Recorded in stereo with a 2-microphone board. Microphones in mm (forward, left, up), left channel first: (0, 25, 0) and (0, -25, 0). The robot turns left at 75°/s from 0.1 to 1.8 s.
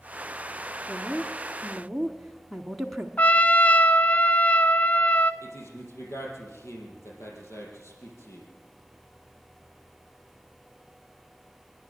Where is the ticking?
I don't hear ticking.